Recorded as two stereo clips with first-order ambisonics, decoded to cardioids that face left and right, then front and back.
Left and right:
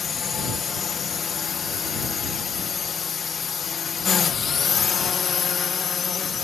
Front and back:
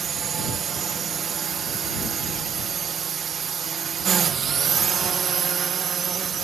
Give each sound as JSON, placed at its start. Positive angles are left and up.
{"t": 0.0, "sound": "a drone", "azimuth_deg": 135}